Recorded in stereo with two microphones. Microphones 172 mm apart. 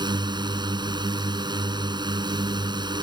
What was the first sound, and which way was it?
A drone, 25° right (ahead or behind).